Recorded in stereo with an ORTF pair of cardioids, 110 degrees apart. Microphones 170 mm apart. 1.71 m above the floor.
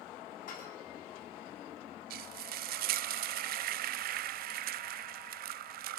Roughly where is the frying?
Ahead right.